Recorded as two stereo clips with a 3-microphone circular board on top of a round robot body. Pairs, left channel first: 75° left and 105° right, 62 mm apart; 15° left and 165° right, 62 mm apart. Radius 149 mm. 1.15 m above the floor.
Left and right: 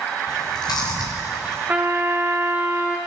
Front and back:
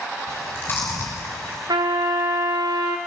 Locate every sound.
0.3 s chewing: 70° left, 1.6 m
1.7 s a trumpet: 175° right, 0.6 m